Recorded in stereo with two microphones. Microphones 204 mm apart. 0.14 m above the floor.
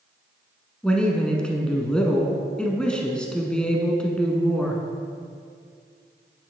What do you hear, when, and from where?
0.8 s a man speaking: 5° left (ahead or behind), 1.3 m